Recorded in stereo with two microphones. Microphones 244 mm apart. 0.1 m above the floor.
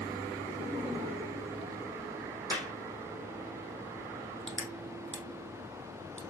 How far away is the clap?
About 5 m.